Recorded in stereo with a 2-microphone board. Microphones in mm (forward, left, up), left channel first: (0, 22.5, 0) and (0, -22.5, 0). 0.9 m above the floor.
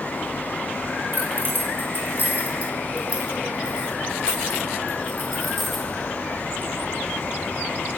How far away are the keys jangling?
About 3.5 m.